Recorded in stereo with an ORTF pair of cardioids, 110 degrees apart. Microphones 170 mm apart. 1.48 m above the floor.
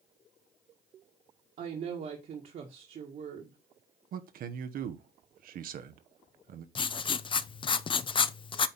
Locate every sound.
1.6 s a woman speaking: 50° right, 1.9 m
4.1 s a man speaking: 60° right, 1.2 m
6.8 s writing: 30° left, 0.6 m